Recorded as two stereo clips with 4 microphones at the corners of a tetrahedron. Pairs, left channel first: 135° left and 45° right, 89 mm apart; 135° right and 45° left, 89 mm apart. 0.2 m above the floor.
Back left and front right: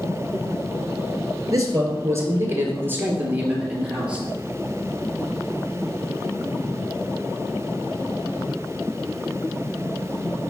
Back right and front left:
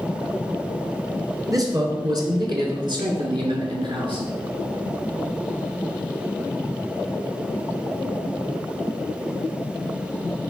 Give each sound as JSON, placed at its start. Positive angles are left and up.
{"t": 1.5, "sound": "a man speaking", "azimuth_deg": 0, "distance_m": 2.5}